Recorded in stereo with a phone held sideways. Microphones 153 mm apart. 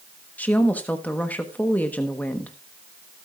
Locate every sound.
0.4 s a woman speaking: 10° left (ahead or behind), 1.1 m